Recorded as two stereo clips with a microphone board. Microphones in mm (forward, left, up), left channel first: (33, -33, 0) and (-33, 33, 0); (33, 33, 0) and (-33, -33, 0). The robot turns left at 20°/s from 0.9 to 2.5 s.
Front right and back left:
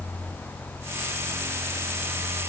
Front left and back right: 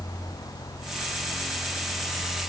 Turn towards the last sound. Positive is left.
No sound to turn to.